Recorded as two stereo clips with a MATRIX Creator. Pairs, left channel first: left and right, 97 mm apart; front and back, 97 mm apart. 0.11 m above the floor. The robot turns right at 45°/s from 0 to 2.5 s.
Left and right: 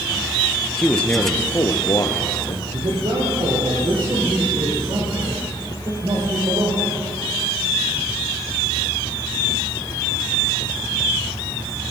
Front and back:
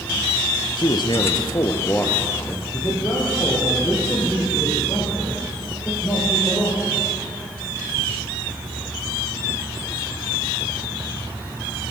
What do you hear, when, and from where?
0.8 s a man speaking: 5° left, 1.7 m; by 2.6 s 80° left, 1.7 m
2.7 s a man speaking: 65° right, 5.5 m